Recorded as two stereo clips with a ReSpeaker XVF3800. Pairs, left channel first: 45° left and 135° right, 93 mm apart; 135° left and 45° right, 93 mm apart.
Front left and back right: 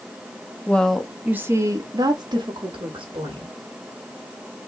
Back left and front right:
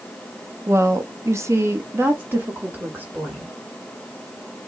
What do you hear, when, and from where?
0.7 s a woman speaking: 15° right, 0.6 m; by 3.5 s 120° right, 1.6 m